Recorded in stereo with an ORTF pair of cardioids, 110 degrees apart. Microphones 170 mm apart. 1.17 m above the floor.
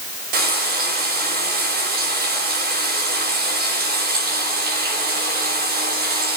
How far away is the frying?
About 6 m.